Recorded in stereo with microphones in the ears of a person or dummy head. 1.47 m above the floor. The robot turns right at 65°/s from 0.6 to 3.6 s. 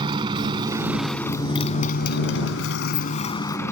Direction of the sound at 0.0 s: 30° right.